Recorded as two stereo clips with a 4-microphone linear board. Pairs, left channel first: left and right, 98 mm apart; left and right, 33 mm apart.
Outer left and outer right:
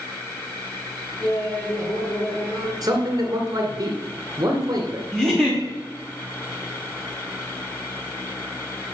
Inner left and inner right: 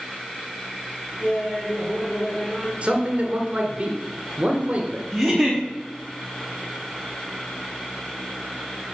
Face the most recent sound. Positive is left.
turn(degrees=0)  # may be behind; listen again after turning